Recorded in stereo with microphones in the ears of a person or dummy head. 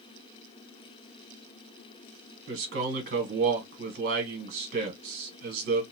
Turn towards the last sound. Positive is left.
turn(degrees=-50)  # may be behind; listen again after turning